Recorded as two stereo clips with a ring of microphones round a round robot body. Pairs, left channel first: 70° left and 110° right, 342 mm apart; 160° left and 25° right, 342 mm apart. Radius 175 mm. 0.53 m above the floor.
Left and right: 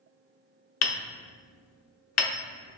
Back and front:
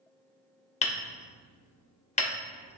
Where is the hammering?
95° left, 0.9 m.